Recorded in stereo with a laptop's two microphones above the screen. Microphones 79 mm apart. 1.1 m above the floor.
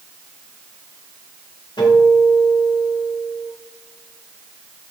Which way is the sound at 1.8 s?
80° left.